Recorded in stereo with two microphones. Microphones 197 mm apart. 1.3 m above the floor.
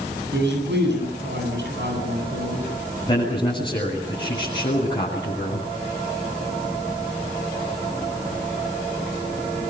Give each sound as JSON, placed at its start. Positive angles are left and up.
{"t": 0.3, "sound": "a man speaking", "side_deg": -70, "distance_m": 9.5}
{"t": 3.1, "sound": "a man speaking", "side_deg": 25, "distance_m": 8.5}